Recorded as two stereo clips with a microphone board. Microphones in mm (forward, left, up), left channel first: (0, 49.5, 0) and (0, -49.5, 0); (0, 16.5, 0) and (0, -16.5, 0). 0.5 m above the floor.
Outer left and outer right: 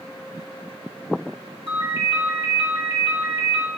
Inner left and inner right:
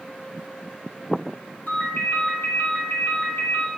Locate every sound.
1.7 s a ringtone: 75° left (ahead or behind), 2 m